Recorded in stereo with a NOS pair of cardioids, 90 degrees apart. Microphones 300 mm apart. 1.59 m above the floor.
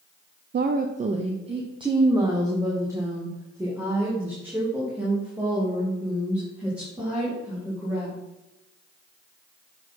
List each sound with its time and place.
0.5 s a woman speaking: 35° right, 0.5 m; by 8.2 s 5° right, 4.5 m